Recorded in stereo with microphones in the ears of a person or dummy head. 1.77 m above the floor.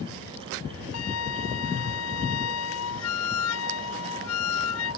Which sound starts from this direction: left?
A flute, at 0.9 s.